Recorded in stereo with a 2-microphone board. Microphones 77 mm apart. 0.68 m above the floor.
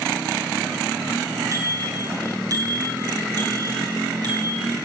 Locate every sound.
1.5 s a bicycle bell: 40° right (ahead or behind), 6.5 m; by 4.7 s 60° right (ahead or behind), 5.5 m